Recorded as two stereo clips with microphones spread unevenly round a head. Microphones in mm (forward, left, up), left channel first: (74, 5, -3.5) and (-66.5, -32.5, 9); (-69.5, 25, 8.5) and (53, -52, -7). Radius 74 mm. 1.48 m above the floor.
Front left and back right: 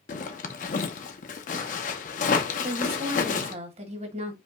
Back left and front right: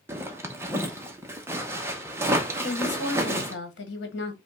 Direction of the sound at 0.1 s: 45° left.